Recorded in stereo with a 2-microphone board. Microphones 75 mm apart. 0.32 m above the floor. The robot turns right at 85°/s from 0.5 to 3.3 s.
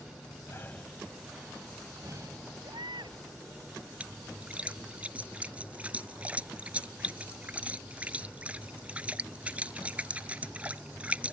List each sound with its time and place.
0.5 s breathing: 35° left (ahead or behind); by 2.5 s 40° right (ahead or behind)
2.6 s a baby crying: 115° right; by 3.2 s 70° right
4.0 s a splash: 15° right (ahead or behind)